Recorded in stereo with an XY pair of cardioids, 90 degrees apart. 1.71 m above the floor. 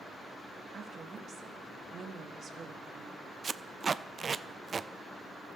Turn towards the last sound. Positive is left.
turn(degrees=-40)